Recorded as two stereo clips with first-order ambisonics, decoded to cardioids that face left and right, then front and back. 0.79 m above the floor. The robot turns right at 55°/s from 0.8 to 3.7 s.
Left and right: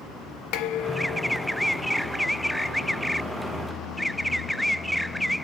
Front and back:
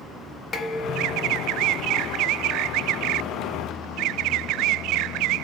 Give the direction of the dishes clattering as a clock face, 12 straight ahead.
10 o'clock.